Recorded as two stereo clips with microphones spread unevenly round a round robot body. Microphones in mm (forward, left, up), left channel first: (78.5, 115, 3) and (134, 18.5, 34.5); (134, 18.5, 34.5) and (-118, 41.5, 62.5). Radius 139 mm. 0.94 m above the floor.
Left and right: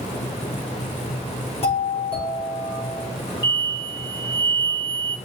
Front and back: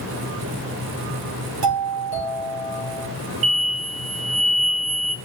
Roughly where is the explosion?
Behind.